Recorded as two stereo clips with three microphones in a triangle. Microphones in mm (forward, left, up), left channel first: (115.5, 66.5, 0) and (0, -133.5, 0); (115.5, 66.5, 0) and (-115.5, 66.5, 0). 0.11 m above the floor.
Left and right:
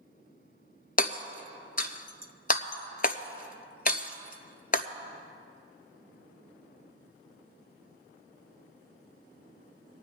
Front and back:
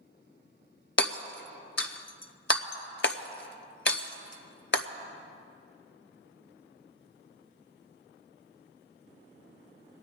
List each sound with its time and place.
1.0 s hammering: 15° left, 0.6 m